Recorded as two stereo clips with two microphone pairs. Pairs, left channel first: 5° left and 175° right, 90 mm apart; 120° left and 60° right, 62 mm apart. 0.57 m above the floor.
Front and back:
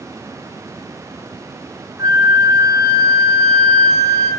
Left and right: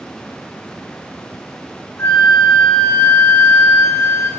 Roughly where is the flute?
Behind left.